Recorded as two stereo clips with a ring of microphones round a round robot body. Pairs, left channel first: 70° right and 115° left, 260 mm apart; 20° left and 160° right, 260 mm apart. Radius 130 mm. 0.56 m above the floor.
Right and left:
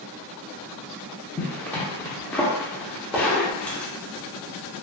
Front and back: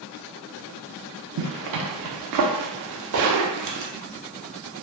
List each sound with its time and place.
1.4 s a zipper: 150° right, 0.5 m
3.1 s a splash: 160° right, 1.0 m